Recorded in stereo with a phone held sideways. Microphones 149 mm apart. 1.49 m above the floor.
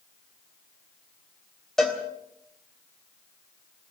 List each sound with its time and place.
1.8 s a cowbell: 5° left (ahead or behind), 3.5 m